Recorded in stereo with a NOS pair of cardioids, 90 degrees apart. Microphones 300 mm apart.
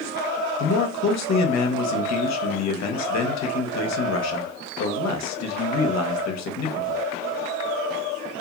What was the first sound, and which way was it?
A man speaking, 65° left.